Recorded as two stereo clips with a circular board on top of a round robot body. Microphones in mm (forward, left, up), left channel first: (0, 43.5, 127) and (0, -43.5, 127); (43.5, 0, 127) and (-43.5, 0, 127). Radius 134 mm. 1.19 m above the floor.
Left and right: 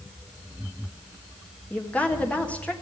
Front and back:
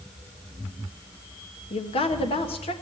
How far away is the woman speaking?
About 1.5 m.